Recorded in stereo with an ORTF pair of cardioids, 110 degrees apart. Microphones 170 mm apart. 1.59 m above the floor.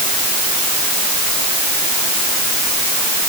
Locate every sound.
Only background noise.